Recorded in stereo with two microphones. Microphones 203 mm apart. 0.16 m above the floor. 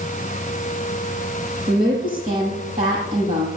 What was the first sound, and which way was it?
A woman speaking, 40° right (ahead or behind).